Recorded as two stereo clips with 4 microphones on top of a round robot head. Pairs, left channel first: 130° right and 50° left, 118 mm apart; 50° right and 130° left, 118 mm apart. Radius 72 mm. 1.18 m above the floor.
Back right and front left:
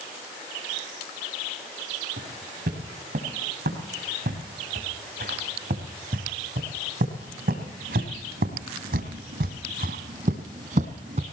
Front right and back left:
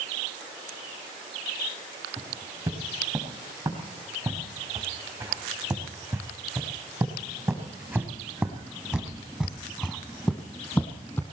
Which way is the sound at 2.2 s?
65° left.